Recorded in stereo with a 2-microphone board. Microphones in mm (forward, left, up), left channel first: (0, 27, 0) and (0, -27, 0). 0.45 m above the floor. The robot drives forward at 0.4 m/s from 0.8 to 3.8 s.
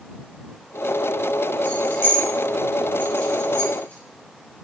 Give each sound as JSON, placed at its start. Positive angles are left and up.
{"t": 1.6, "sound": "keys jangling", "side_deg": 40, "distance_m": 2.5}